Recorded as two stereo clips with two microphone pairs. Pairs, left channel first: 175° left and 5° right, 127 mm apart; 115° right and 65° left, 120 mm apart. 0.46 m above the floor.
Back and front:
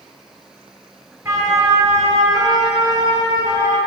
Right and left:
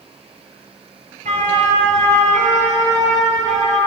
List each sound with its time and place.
1.2 s a siren: 65° left, 6.5 m; by 3.8 s 50° left, 7.5 m